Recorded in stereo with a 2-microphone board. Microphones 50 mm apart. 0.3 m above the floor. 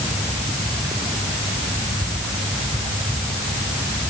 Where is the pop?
I don't hear a pop.